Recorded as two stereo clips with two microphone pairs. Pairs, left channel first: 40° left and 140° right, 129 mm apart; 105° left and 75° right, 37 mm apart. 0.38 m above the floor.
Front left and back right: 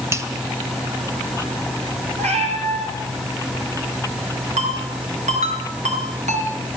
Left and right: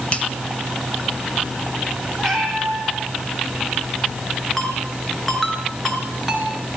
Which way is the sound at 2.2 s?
170° right.